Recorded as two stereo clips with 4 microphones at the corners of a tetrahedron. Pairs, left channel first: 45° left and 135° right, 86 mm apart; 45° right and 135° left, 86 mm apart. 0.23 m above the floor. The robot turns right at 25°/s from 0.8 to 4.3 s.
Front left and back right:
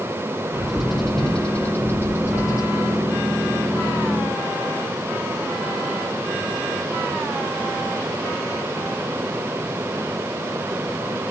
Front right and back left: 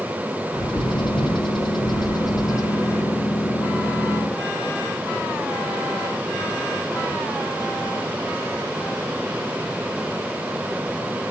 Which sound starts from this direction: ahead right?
A bird, at 0.5 s.